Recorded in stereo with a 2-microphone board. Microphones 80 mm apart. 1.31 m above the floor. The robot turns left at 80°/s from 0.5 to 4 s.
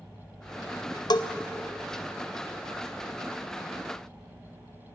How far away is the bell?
About 0.7 m.